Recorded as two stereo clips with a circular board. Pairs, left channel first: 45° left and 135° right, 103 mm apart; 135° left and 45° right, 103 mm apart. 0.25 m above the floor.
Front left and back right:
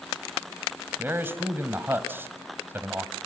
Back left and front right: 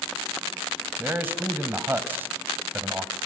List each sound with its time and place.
1.0 s a man speaking: 95° right, 1.6 m